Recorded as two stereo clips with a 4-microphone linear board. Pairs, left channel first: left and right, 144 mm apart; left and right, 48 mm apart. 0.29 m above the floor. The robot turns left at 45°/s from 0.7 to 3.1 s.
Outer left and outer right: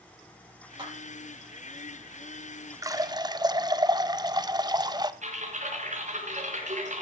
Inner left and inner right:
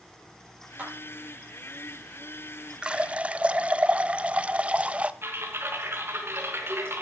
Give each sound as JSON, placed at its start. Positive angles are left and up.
{"t": 0.8, "sound": "a clap", "side_deg": -30, "distance_m": 8.0}
{"t": 2.8, "sound": "a running tap", "side_deg": -25, "distance_m": 0.7}
{"t": 5.2, "sound": "typing on a keyboard", "side_deg": -55, "distance_m": 4.0}